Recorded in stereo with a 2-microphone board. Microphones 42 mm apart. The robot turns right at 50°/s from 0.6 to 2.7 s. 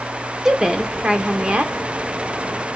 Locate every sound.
0.5 s a woman speaking: 15° right (ahead or behind), 0.8 m; by 1.7 s 25° right (ahead or behind), 0.8 m